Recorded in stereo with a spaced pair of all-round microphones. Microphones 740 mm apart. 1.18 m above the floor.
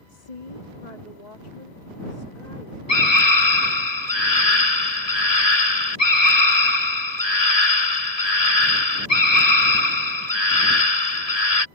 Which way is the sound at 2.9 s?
55° left (ahead or behind).